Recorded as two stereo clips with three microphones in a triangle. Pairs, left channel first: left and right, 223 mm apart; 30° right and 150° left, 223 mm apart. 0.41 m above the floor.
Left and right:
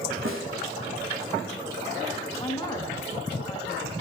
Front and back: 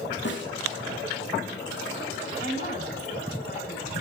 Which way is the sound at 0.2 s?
65° right.